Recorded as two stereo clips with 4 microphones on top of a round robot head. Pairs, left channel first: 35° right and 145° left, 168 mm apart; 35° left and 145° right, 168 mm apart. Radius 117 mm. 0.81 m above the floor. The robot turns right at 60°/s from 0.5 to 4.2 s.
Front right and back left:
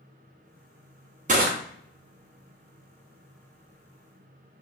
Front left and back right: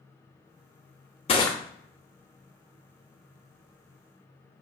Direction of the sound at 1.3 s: 95° left.